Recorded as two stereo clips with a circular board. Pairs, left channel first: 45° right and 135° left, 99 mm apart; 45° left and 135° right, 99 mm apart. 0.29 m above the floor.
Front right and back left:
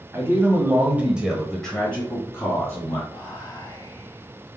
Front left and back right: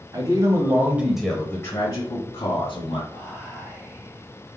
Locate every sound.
0.1 s a man speaking: 170° right, 1.6 m; by 3.0 s 20° left, 2 m
3.1 s whispering: 20° right, 1.6 m